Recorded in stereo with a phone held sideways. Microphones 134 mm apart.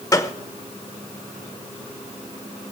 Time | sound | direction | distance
0.1 | a gunshot | 25° left (ahead or behind) | 0.9 m